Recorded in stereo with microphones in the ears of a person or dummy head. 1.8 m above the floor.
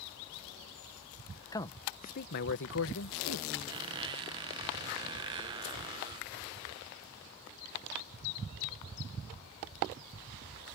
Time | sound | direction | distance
1.5 | a man speaking | 20° left (ahead or behind) | ?
3.7 | a squeak | 20° right (ahead or behind) | ?